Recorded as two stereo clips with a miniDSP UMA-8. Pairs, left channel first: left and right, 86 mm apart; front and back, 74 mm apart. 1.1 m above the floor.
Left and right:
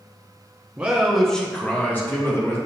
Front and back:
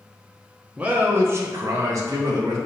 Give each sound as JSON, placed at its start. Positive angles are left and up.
{"t": 0.8, "sound": "a man speaking", "azimuth_deg": -135, "distance_m": 0.6}